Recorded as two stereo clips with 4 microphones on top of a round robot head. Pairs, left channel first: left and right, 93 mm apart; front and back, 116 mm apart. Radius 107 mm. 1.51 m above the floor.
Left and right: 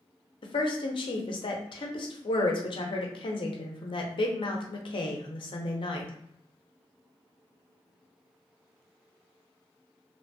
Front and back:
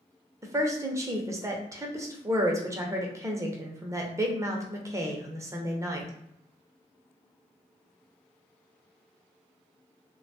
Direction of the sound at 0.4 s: 115° left.